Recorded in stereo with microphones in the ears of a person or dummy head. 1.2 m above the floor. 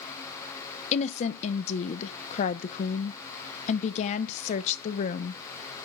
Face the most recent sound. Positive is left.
turn(degrees=40)  # may be behind; listen again after turning